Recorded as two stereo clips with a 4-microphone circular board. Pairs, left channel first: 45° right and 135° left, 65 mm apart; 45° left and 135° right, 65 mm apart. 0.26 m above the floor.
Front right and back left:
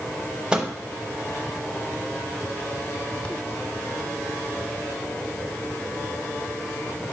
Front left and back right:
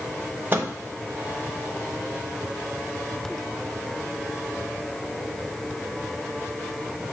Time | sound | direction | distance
0.5 | a microwave | 160° right | 0.9 m